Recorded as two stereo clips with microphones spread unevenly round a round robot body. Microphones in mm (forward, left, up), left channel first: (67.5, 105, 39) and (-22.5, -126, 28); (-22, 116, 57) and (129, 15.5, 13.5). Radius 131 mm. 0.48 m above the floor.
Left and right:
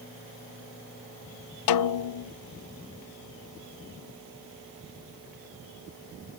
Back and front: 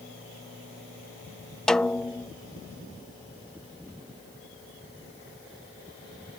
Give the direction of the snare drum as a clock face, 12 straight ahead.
10 o'clock.